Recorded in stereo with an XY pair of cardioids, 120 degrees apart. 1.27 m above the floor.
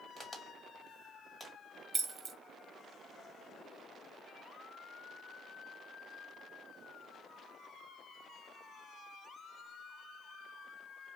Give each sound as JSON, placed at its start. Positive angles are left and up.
{"t": 0.2, "sound": "a crack", "azimuth_deg": 10, "distance_m": 1.4}
{"t": 1.9, "sound": "keys jangling", "azimuth_deg": -35, "distance_m": 0.5}